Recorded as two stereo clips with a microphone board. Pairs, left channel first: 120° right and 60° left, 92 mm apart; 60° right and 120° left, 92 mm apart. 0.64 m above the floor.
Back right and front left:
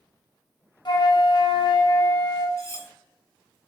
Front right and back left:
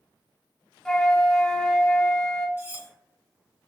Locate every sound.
0.8 s a flute: 145° right, 0.8 m
2.6 s cutlery clinking: 175° right, 1.0 m